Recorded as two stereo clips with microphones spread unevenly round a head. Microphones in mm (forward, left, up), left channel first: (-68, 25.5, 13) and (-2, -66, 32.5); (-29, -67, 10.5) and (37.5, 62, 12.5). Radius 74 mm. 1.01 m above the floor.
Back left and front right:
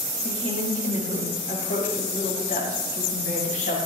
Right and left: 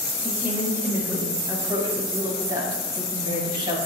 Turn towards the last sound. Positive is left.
turn(degrees=125)